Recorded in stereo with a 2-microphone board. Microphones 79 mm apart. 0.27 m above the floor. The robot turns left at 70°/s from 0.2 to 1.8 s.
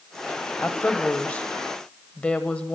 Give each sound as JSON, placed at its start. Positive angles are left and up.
{"t": 0.6, "sound": "a woman speaking", "side_deg": 15, "distance_m": 1.1}